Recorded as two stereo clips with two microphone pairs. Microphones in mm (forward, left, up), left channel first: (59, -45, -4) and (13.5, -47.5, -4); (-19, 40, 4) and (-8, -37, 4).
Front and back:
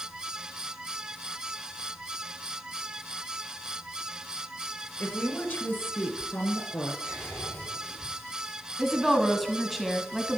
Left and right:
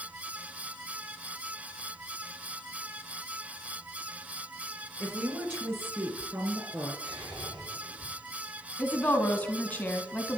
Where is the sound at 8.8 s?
105° left, 1.4 m.